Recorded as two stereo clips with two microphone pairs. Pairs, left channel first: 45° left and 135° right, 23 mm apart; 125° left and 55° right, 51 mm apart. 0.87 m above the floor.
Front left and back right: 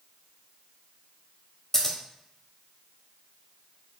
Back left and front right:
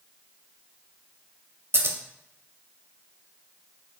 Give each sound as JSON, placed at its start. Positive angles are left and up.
{"t": 1.7, "sound": "scissors", "azimuth_deg": -20, "distance_m": 0.5}